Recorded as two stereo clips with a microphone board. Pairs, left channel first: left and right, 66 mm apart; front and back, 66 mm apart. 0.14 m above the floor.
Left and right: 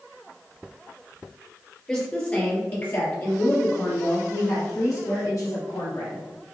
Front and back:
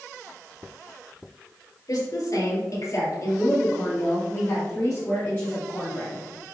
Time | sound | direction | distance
1.9 | a woman speaking | 15° left | 3 m